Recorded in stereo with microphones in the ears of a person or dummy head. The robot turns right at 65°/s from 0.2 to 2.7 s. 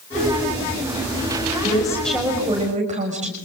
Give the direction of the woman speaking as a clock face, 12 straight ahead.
7 o'clock.